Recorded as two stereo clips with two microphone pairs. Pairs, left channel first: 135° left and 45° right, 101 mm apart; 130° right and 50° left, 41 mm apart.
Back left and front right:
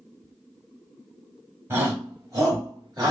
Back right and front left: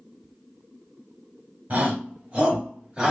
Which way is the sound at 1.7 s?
15° left.